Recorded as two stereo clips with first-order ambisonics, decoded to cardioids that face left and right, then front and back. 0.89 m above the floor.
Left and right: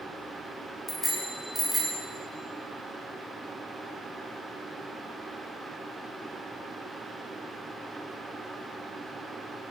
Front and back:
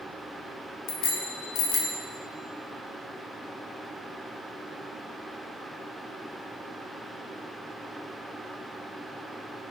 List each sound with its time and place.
0.9 s a bicycle bell: 15° left, 2 m; by 2.0 s 20° right, 2.5 m